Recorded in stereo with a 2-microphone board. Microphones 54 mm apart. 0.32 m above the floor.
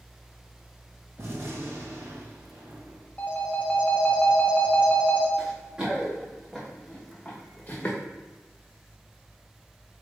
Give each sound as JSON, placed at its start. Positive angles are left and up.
{"t": 1.2, "sound": "a gunshot", "side_deg": -50, "distance_m": 1.0}
{"t": 3.2, "sound": "a phone ringing", "side_deg": 30, "distance_m": 0.7}
{"t": 5.4, "sound": "running footsteps", "side_deg": -25, "distance_m": 1.5}